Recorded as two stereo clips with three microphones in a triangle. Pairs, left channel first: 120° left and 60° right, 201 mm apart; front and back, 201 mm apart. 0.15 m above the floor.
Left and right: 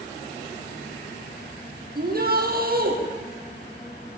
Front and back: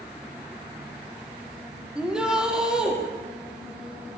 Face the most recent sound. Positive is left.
turn(degrees=-95)